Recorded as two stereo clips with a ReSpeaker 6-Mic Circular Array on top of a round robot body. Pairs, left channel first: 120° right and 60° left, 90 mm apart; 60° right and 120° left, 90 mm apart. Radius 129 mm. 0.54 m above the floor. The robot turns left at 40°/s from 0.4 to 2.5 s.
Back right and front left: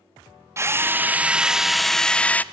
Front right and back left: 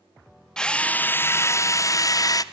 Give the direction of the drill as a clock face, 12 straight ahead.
11 o'clock.